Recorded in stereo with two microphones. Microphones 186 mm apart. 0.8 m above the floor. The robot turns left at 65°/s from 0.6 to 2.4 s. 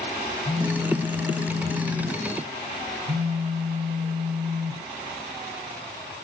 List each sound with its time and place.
0.5 s a phone buzzing: 20° left, 3.5 m; by 4.8 s 100° right, 3.5 m